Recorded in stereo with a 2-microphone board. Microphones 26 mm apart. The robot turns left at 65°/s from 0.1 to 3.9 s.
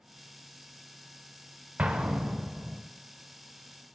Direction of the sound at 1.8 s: 80° right.